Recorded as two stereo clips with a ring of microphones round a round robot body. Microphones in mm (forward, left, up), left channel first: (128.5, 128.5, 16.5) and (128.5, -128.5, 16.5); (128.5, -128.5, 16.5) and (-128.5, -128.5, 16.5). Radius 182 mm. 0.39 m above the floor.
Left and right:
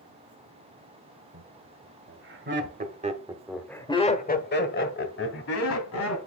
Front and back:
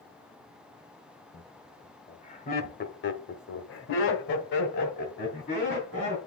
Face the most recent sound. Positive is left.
turn(degrees=70)